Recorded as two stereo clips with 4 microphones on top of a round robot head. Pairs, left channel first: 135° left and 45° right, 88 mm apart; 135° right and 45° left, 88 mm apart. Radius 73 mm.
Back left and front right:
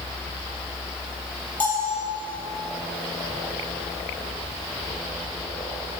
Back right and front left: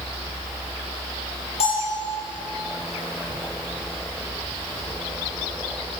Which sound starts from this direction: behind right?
A bell, at 1.6 s.